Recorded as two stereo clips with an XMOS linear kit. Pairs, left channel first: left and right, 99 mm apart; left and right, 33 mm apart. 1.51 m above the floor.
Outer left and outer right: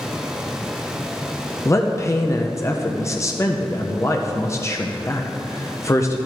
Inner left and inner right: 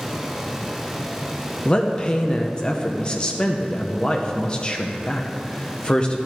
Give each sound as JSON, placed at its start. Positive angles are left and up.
{"t": 1.6, "sound": "a man speaking", "side_deg": 30, "distance_m": 0.7}